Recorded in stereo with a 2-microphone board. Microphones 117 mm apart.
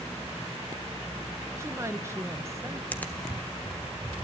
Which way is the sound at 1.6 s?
25° right (ahead or behind).